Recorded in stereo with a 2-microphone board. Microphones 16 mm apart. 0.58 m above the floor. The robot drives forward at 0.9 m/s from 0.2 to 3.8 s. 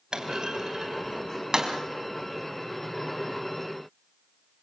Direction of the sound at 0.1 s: 55° right (ahead or behind).